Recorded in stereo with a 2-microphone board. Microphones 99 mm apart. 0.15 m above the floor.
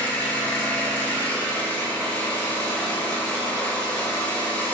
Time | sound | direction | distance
0.0 | an engine running | 15° left (ahead or behind) | 0.9 m